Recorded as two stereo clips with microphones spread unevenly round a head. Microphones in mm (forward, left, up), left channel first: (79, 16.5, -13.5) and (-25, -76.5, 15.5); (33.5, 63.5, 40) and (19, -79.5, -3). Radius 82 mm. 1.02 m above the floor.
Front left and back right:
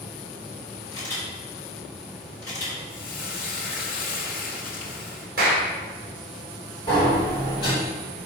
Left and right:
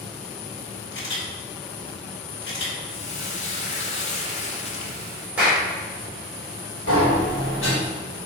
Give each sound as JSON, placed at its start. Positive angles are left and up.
{"t": 0.9, "sound": "a camera shutter", "azimuth_deg": 110, "distance_m": 3.0}
{"t": 2.9, "sound": "frying", "azimuth_deg": 40, "distance_m": 1.3}
{"t": 5.4, "sound": "a clap", "azimuth_deg": -175, "distance_m": 2.5}
{"t": 6.9, "sound": "a sliding door", "azimuth_deg": 105, "distance_m": 3.0}